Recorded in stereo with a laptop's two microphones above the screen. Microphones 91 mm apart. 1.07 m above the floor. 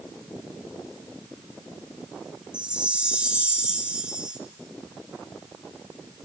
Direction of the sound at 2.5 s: 10° right (ahead or behind).